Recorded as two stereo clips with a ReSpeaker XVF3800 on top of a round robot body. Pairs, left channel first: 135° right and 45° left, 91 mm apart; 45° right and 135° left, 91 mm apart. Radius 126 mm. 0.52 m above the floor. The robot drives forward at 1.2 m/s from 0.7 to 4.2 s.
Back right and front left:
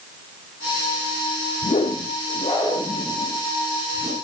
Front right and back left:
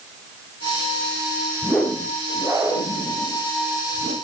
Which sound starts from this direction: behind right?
A whoosh, at 1.6 s.